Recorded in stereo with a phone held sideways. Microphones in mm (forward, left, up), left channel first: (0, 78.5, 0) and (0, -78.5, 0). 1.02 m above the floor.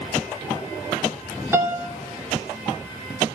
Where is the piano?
15° right (ahead or behind), 1.6 m.